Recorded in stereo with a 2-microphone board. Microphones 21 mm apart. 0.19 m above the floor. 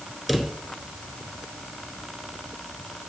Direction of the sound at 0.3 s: 5° right (ahead or behind).